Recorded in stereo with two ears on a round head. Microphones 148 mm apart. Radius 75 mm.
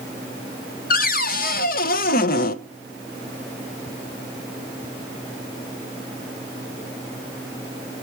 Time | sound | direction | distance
0.9 | a cupboard door | 55° left (ahead or behind) | 0.6 m